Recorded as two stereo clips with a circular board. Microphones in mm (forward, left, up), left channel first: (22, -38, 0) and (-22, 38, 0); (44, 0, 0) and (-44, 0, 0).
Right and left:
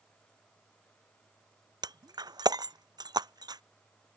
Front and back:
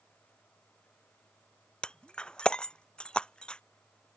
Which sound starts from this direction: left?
Breaking glass, at 1.8 s.